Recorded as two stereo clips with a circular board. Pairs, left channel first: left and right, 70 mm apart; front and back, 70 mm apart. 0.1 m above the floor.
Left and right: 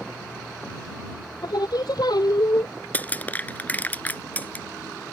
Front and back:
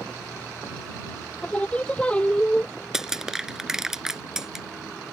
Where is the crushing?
110° left.